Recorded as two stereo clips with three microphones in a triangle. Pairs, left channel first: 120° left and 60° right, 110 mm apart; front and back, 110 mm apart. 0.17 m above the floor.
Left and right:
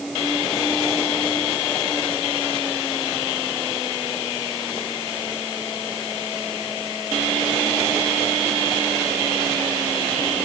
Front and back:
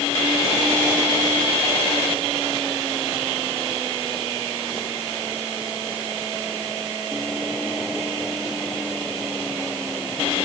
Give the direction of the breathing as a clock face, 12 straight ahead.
I don't hear breathing.